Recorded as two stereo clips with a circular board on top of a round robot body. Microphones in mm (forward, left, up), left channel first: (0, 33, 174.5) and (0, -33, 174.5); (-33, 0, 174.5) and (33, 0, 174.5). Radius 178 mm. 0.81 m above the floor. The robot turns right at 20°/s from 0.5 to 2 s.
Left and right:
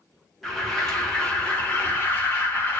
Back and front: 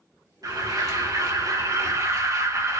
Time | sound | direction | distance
0.4 | an alarm | straight ahead | 4 m